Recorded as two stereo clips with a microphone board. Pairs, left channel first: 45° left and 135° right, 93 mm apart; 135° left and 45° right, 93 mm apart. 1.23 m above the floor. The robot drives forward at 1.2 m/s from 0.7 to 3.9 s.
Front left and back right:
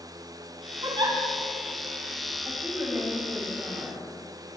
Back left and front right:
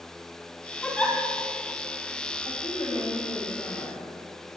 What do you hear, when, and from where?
0.8 s a giggle: 150° right, 4.5 m
2.5 s a woman speaking: 160° left, 6.5 m; by 4.0 s 165° left, 8 m